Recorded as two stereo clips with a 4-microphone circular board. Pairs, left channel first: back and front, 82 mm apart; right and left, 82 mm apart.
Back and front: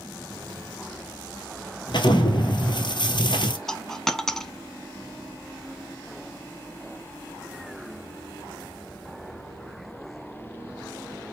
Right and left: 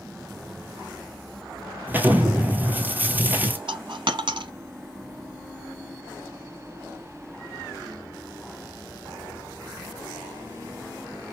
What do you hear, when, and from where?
1.9 s an explosion: 160° left, 1.1 m
3.7 s a dropped coin: 95° left, 0.6 m